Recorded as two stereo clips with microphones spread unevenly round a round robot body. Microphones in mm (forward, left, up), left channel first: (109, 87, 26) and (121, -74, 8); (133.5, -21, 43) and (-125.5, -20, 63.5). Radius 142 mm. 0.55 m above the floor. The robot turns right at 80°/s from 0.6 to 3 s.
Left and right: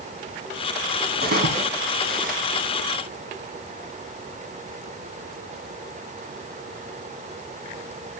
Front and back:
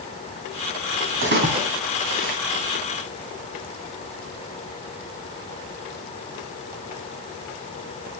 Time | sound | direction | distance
1.2 | a splash | 140° right | 3.5 m